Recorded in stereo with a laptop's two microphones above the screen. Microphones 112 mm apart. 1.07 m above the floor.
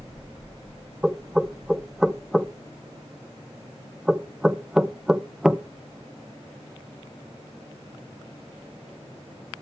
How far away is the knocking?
About 0.7 m.